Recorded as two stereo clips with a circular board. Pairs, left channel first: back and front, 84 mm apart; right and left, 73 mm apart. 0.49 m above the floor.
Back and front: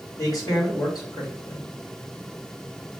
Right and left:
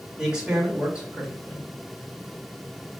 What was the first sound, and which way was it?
A man speaking, 165° left.